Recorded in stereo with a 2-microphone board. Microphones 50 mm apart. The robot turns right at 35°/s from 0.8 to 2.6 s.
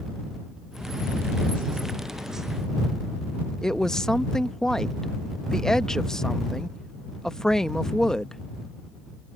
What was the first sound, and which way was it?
A woman speaking, 10° left (ahead or behind).